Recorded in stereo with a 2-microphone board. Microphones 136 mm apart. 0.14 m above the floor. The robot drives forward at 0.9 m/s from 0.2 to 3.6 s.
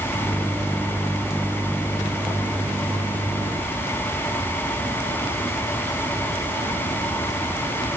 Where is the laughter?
No laughter in this recording.